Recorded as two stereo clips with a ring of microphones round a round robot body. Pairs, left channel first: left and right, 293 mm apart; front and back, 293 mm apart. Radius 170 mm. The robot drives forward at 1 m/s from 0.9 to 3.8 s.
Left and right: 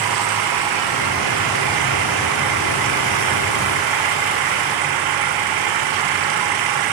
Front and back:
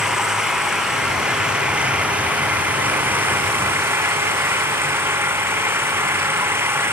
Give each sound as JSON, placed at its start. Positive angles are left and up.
{"t": 0.0, "sound": "an engine running", "azimuth_deg": -90}